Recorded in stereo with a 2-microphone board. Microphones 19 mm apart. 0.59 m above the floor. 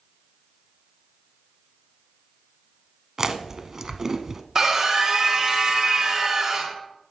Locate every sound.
3.2 s chewing: 30° right (ahead or behind), 0.7 m
4.5 s a scream: 25° right (ahead or behind), 1.6 m